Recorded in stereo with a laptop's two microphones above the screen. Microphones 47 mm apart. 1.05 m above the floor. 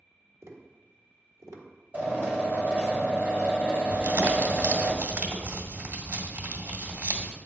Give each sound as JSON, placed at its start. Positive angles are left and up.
{"t": 0.4, "sound": "tapping", "side_deg": -80, "distance_m": 1.5}
{"t": 1.9, "sound": "a drill", "side_deg": -35, "distance_m": 2.5}
{"t": 3.9, "sound": "crumpling", "side_deg": -50, "distance_m": 1.7}